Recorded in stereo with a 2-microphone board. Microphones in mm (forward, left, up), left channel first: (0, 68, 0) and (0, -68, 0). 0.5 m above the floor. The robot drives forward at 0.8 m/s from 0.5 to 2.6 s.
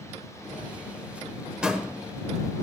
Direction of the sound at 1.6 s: 5° right (ahead or behind).